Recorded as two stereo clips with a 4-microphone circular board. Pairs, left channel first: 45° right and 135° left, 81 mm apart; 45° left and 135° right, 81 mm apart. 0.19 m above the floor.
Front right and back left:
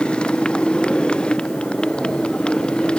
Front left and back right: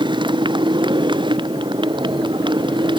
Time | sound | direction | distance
0.0 | a motorcycle | 120° right | ?